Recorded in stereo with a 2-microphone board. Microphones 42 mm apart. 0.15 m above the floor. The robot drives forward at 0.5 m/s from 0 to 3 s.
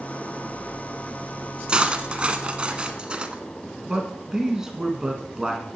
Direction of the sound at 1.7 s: 25° right (ahead or behind).